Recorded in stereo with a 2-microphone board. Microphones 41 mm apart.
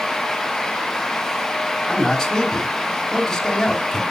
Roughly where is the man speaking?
Centre.